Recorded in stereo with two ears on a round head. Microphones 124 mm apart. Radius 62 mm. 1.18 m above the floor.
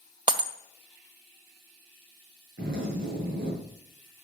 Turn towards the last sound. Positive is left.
turn(degrees=-80)